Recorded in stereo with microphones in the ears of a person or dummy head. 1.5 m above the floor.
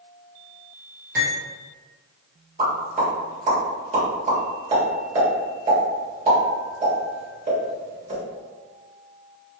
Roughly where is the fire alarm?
I don't hear a fire alarm.